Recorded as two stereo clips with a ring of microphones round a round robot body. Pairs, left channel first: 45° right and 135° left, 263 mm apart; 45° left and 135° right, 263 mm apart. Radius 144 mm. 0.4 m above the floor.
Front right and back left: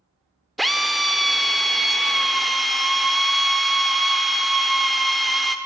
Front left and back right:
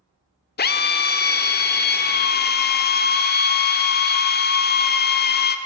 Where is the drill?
45° left, 1.2 m.